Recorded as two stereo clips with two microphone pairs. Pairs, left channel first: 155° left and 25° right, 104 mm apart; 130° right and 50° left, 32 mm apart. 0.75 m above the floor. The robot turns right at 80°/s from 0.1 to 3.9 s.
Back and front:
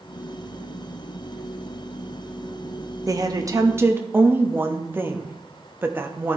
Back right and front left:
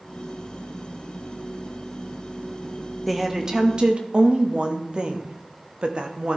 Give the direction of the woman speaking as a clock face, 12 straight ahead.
1 o'clock.